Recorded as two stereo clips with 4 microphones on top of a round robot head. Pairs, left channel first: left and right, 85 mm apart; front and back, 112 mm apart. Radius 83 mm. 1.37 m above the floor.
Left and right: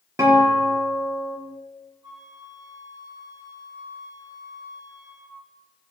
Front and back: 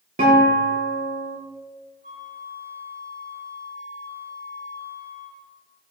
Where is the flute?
135° right, 7 m.